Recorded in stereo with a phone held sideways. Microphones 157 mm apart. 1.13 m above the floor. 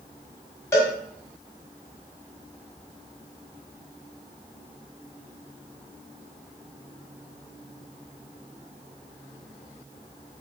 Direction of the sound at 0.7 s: 20° left (ahead or behind).